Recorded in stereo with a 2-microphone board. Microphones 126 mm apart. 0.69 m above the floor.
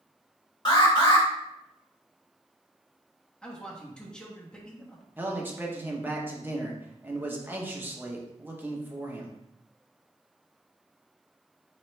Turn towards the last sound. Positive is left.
turn(degrees=-15)  # may be behind; listen again after turning